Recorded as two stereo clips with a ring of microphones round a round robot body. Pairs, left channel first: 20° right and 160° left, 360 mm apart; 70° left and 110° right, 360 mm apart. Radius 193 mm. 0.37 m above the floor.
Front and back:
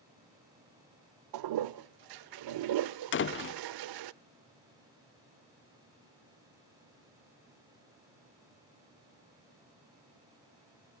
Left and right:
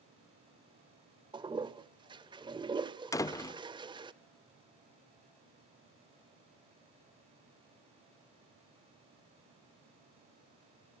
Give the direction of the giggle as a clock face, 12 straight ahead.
No giggle in this recording.